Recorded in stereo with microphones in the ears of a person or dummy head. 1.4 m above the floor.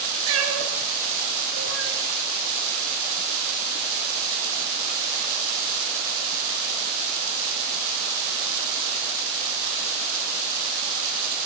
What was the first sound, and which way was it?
A cat meowing, 80° right.